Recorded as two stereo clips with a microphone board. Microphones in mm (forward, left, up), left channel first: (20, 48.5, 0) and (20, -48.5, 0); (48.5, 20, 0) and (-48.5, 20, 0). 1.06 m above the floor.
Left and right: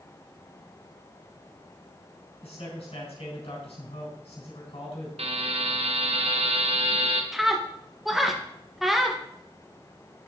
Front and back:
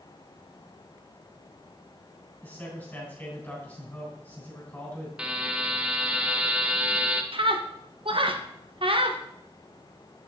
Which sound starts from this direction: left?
A man speaking, at 2.4 s.